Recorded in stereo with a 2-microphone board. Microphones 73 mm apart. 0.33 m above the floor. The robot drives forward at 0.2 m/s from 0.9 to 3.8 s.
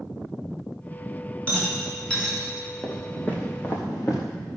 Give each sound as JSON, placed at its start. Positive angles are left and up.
{"t": 1.5, "sound": "a rattle", "side_deg": 15, "distance_m": 4.0}
{"t": 2.8, "sound": "footsteps", "side_deg": 15, "distance_m": 3.0}